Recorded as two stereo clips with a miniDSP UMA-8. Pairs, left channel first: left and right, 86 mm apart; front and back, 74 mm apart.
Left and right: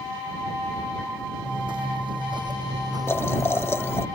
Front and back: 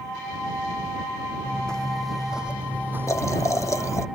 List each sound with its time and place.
1.4 s footsteps: 75° right; by 4.1 s 150° right
3.1 s boiling: 35° left